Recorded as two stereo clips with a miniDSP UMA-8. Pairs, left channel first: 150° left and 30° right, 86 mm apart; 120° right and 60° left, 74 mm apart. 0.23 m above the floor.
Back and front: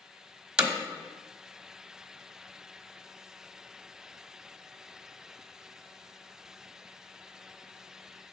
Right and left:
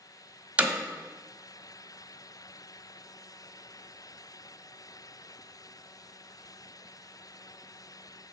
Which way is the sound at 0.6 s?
30° left.